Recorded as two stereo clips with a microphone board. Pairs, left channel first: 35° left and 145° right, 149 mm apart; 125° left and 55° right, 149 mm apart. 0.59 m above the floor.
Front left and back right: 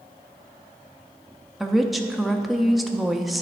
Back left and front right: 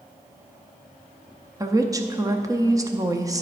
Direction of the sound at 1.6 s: 55° right.